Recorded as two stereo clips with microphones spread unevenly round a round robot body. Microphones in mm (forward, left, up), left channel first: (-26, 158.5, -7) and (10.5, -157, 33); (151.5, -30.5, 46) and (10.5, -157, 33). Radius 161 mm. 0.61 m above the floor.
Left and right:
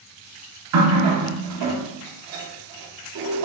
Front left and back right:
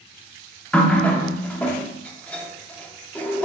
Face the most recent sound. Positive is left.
turn(degrees=-45)